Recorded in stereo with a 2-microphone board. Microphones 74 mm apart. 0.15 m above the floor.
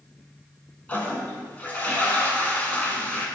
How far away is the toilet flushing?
About 0.6 m.